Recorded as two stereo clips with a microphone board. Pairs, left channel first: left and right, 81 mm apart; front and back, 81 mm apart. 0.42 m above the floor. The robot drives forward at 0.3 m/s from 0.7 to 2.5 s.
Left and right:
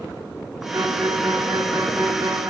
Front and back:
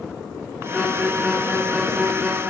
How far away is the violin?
About 1.7 m.